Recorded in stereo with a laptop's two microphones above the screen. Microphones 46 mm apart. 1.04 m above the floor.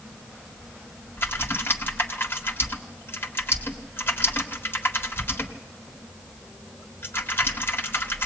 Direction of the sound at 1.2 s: 50° left (ahead or behind).